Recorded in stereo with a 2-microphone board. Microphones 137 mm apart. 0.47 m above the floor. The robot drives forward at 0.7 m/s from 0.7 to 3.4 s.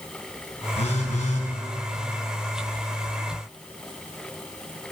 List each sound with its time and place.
0.8 s a phone buzzing: 55° left (ahead or behind), 2 m; by 1.5 s 65° left (ahead or behind), 2.0 m